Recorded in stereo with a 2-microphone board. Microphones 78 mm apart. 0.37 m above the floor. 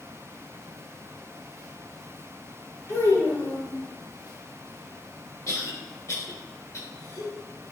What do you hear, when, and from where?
2.9 s a child speaking: 50° left (ahead or behind), 1.4 m
5.5 s a cough: 45° left (ahead or behind), 1.3 m